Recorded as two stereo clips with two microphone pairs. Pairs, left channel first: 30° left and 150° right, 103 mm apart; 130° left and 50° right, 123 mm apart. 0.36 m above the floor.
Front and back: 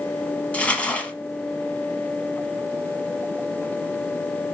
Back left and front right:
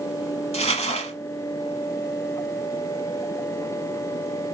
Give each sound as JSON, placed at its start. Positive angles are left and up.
{"t": 0.5, "sound": "crumpling", "azimuth_deg": 105, "distance_m": 0.9}